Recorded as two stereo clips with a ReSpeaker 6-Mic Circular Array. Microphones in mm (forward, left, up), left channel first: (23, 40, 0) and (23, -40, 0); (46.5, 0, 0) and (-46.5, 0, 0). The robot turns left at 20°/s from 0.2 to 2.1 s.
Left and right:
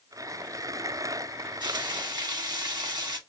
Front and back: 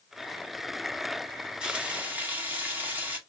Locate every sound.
1.6 s frying: 100° right, 1.6 m; by 3.2 s 110° right, 1.6 m